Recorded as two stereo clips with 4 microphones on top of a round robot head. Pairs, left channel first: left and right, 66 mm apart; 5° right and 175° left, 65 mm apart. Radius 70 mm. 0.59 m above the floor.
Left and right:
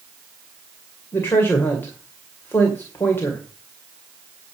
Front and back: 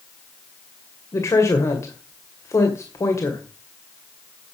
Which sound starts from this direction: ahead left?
A woman speaking, at 1.1 s.